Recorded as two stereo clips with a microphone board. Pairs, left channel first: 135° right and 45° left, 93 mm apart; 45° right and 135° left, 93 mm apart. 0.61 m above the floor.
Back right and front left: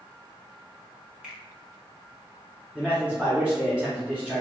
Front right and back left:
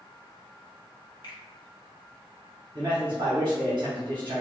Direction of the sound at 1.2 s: 35° right.